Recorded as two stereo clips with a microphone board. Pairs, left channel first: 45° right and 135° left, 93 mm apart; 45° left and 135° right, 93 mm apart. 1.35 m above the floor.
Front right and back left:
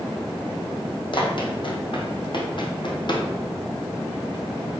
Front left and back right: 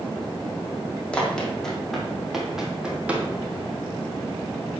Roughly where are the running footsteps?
Ahead right.